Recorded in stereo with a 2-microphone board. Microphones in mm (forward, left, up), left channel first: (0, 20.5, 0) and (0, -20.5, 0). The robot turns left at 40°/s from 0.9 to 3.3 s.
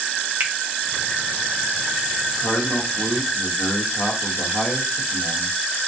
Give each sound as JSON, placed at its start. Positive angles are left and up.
{"t": 0.4, "sound": "a finger snap", "side_deg": -55, "distance_m": 0.6}
{"t": 2.4, "sound": "a man speaking", "azimuth_deg": 120, "distance_m": 1.1}